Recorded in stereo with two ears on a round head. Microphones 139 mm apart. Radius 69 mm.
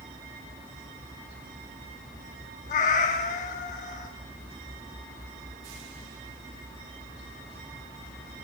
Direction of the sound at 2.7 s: 50° left (ahead or behind).